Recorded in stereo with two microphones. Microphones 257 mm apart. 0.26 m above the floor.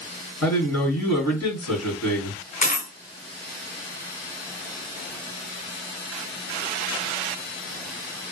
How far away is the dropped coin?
About 1.3 m.